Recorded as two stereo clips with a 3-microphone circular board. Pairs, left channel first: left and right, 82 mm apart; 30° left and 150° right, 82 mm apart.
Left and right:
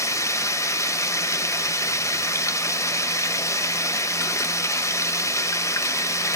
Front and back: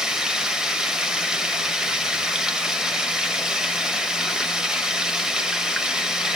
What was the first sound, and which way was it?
Running water, 130° left.